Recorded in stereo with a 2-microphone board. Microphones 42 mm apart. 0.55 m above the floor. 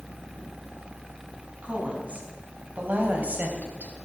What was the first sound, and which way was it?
A woman speaking, 35° right (ahead or behind).